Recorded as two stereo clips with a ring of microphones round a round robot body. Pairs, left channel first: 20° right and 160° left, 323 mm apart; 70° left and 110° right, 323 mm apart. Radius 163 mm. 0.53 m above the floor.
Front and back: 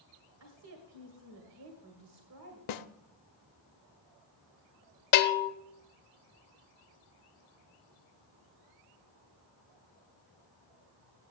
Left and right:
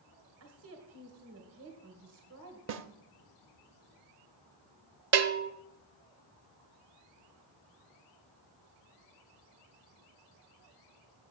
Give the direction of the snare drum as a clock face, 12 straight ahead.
2 o'clock.